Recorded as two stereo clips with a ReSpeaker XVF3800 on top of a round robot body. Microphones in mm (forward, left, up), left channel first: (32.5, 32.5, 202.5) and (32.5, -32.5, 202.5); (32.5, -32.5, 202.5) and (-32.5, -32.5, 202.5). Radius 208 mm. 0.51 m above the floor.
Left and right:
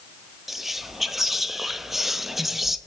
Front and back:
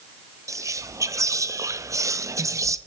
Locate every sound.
0.5 s whispering: 175° right, 0.8 m